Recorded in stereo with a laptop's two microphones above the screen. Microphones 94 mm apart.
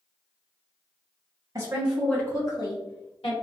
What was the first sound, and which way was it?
A woman speaking, 30° right (ahead or behind).